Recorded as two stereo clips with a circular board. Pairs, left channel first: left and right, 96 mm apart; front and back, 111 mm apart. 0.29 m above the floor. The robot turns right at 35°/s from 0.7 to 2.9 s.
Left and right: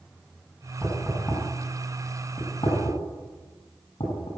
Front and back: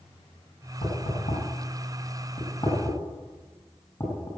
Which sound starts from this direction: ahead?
Knocking, at 0.8 s.